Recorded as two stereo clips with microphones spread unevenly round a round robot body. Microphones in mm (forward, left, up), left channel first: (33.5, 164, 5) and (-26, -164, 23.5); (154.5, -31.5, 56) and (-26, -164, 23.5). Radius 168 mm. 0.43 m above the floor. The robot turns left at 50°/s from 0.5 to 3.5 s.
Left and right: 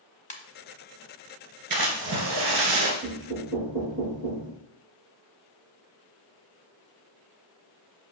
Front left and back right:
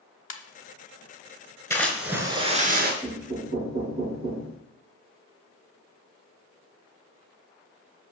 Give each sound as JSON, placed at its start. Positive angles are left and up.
{"t": 0.3, "sound": "a ringtone", "azimuth_deg": 10, "distance_m": 1.2}
{"t": 1.7, "sound": "a splash", "azimuth_deg": -40, "distance_m": 2.0}
{"t": 3.0, "sound": "knocking", "azimuth_deg": -55, "distance_m": 4.0}